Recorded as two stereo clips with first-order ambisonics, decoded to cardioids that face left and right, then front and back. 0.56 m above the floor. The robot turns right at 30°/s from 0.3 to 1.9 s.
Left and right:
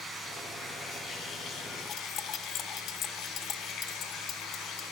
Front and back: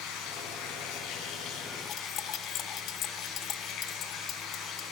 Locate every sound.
0.0 s running water: 5° left, 4.5 m; by 4.9 s 50° left, 4.5 m
1.9 s cutlery clinking: 40° left, 0.8 m